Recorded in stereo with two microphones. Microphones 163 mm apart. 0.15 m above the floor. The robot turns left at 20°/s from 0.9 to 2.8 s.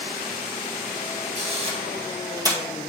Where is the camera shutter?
40° right (ahead or behind), 2 m; by 2.6 s 20° right (ahead or behind), 2 m.